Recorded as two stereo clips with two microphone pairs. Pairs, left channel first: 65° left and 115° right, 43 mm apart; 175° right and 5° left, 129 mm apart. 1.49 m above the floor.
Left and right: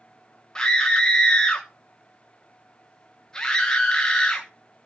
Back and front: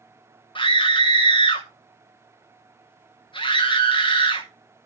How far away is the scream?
About 1.2 m.